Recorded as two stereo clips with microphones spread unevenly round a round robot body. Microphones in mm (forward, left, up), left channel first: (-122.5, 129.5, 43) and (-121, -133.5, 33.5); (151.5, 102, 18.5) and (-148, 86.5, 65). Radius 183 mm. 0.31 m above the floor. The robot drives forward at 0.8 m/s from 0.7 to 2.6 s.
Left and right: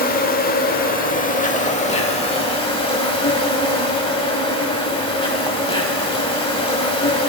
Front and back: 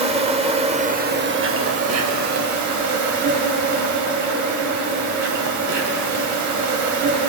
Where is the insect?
115° left, 1.4 m; by 7.3 s 160° left, 2.5 m.